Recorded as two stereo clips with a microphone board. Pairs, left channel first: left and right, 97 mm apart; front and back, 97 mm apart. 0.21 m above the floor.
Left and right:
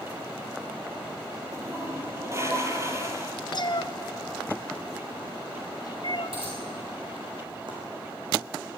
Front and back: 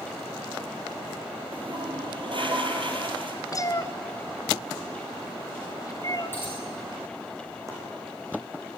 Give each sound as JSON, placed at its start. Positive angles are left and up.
{"t": 1.5, "sound": "a toilet flushing", "azimuth_deg": -150, "distance_m": 3.0}
{"t": 3.5, "sound": "a cat meowing", "azimuth_deg": 55, "distance_m": 0.9}
{"t": 6.3, "sound": "a dropped coin", "azimuth_deg": -70, "distance_m": 6.5}
{"t": 7.7, "sound": "chopping", "azimuth_deg": -125, "distance_m": 8.0}